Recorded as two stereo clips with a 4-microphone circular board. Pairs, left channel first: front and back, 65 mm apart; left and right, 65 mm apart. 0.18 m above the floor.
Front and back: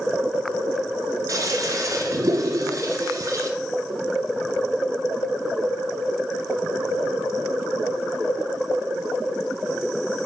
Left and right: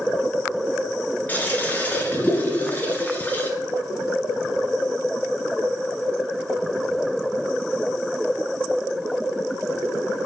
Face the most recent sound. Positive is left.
turn(degrees=155)